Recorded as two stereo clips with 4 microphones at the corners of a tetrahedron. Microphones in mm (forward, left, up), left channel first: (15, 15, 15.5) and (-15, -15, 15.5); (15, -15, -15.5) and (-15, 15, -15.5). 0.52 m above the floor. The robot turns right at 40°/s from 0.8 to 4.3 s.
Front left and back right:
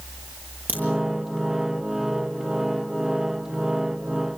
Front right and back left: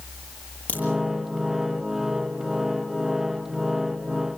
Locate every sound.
0.7 s a crack: 100° right, 9 m